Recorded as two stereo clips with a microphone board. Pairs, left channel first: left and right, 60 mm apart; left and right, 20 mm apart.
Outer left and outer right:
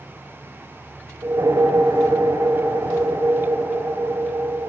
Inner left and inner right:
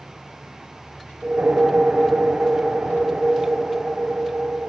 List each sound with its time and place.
1.2 s a whoosh: 70° right (ahead or behind), 3 m